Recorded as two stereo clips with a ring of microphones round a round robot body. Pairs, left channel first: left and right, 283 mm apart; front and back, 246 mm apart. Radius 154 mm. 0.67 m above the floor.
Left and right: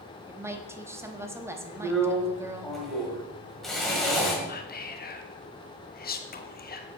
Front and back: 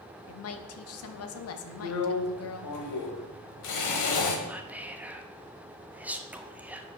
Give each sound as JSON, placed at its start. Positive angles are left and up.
{"t": 0.3, "sound": "a woman speaking", "azimuth_deg": -10, "distance_m": 0.9}
{"t": 1.8, "sound": "a drill", "azimuth_deg": 0, "distance_m": 1.5}
{"t": 4.5, "sound": "whispering", "azimuth_deg": 100, "distance_m": 1.1}